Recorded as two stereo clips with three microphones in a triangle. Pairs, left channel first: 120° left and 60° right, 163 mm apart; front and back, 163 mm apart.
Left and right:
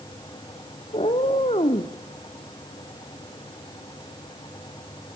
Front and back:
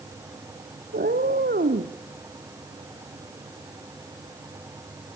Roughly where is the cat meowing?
Behind.